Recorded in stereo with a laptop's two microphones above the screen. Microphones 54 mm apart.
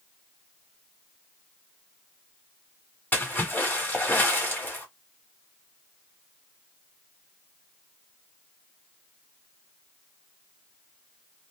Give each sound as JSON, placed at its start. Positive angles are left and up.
{"t": 3.1, "sound": "a splash", "side_deg": 35, "distance_m": 1.3}